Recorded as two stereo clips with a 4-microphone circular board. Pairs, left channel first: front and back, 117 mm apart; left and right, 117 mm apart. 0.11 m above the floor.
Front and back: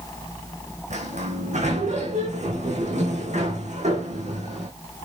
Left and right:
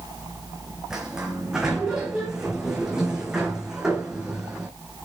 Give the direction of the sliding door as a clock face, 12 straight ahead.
6 o'clock.